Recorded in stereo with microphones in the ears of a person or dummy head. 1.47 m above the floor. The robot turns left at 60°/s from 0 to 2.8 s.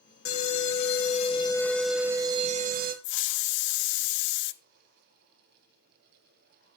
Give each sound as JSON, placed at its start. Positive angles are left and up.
{"t": 0.2, "sound": "an alarm", "azimuth_deg": 95, "distance_m": 1.9}
{"t": 3.0, "sound": "a hiss", "side_deg": 60, "distance_m": 0.8}